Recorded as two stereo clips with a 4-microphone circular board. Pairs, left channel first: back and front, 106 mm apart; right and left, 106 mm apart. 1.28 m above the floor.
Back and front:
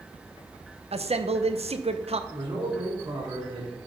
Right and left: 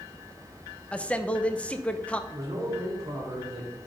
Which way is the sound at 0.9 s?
10° right.